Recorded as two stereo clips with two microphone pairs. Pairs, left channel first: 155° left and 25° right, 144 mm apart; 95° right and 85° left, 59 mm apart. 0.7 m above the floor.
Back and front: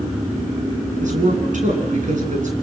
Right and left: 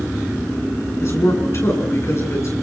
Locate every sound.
1.0 s a man speaking: 55° right, 8 m